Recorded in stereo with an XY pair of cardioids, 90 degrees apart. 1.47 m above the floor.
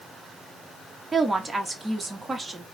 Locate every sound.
1.1 s a woman speaking: 25° right, 1.2 m